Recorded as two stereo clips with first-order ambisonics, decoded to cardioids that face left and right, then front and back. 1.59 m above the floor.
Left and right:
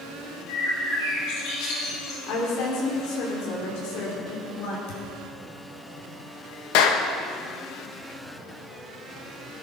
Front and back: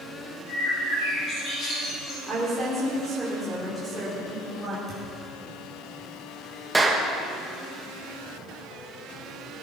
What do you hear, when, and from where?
0.5 s a bird: 60° left, 6.5 m
2.3 s a woman speaking: 95° left, 4 m
4.9 s a thud: 95° left, 5 m
6.7 s a clap: 100° left, 1.4 m